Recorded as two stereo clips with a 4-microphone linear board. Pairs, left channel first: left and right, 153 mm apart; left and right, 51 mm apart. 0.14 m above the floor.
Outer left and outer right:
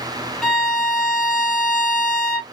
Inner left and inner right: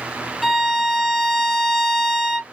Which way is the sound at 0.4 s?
5° left (ahead or behind).